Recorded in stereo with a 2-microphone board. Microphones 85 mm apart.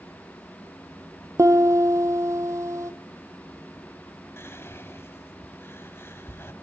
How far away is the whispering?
About 1.4 m.